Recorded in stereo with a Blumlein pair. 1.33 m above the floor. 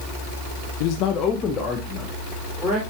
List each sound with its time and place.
0.8 s a man speaking: 50° left, 0.9 m; by 2.8 s straight ahead, 3.5 m